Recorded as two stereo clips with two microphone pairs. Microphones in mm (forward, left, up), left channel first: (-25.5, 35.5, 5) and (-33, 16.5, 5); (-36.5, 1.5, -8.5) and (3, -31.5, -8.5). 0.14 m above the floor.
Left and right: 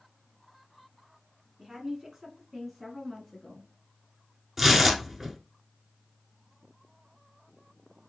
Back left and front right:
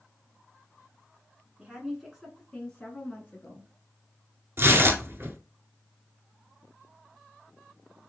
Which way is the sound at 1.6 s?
95° right.